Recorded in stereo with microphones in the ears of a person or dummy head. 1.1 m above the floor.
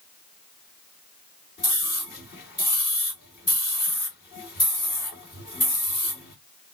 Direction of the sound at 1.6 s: 55° left (ahead or behind).